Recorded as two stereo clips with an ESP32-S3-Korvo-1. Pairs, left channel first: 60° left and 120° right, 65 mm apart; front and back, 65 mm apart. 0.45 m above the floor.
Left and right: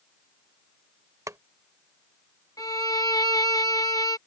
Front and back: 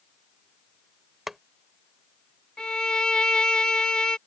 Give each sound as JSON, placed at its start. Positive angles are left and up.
{"t": 1.3, "sound": "boiling", "azimuth_deg": -95}
{"t": 2.6, "sound": "a violin", "azimuth_deg": 75}